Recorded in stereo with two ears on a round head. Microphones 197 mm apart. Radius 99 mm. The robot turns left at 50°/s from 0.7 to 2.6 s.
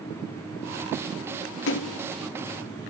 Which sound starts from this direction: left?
A splash, at 1.7 s.